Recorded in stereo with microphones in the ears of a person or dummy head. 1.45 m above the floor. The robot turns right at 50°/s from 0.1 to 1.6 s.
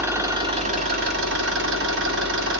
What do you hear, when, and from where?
0.0 s an engine running: 160° right, 1.3 m; by 2.6 s 85° right, 1.3 m